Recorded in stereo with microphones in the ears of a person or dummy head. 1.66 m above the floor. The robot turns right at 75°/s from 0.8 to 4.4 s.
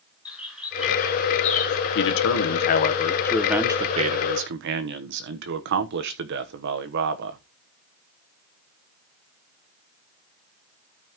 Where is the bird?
Centre (ahead or behind), 8 m; by 1.8 s 70° left (ahead or behind), 8 m.